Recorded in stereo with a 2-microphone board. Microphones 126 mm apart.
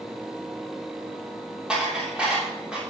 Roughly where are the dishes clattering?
Centre.